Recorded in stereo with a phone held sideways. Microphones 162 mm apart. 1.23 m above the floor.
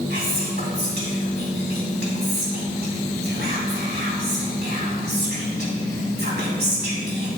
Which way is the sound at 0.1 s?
75° right (ahead or behind).